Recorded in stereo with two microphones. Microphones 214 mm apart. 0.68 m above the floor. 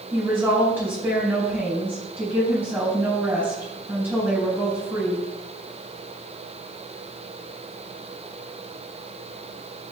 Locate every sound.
0.1 s a woman speaking: 10° right (ahead or behind), 4 m